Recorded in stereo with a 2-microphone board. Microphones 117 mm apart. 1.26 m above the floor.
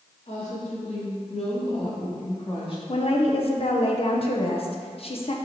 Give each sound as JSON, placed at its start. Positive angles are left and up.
{"t": 0.3, "sound": "a woman speaking", "side_deg": 85, "distance_m": 2.5}
{"t": 2.9, "sound": "a woman speaking", "side_deg": 55, "distance_m": 1.0}